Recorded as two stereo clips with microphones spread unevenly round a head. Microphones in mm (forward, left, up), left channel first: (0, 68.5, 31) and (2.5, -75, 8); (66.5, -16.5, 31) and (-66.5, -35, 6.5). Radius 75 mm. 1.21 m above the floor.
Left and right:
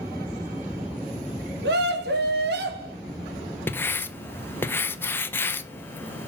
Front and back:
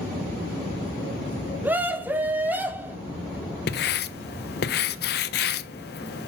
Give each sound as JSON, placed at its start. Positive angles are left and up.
{"t": 1.6, "sound": "a scream", "azimuth_deg": -95, "distance_m": 3.0}
{"t": 3.7, "sound": "writing", "azimuth_deg": 10, "distance_m": 1.0}